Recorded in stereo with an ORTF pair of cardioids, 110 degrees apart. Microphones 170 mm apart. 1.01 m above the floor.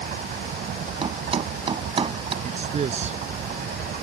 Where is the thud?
35° right.